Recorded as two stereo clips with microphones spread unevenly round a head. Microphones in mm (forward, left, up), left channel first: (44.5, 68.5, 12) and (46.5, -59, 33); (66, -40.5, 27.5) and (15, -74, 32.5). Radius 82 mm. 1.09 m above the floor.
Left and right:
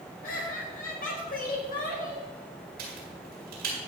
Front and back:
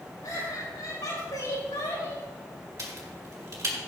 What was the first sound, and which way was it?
Laughter, 85° left.